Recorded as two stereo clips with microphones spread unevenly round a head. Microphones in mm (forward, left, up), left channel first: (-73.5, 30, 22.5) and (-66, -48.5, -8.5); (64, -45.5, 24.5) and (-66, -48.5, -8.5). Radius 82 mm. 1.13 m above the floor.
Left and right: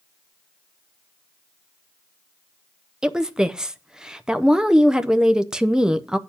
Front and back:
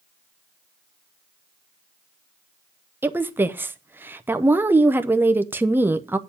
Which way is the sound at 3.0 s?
135° right.